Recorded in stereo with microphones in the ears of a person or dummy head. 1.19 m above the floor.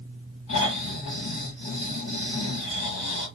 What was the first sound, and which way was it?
Snoring, 45° left (ahead or behind).